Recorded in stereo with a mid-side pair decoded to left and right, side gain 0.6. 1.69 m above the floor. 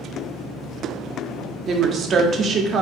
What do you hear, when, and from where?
1.7 s a woman speaking: 45° right, 0.5 m